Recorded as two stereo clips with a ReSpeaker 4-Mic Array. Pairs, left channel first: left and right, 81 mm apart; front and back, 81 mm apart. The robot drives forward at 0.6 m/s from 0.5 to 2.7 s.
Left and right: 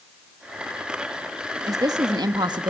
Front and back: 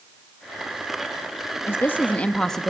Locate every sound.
1.7 s a woman speaking: 55° right, 1.3 m; by 2.7 s 90° right, 1.2 m